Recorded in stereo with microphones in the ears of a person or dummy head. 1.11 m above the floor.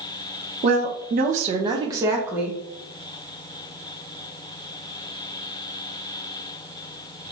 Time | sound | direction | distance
0.6 | a woman speaking | 40° right (ahead or behind) | 0.9 m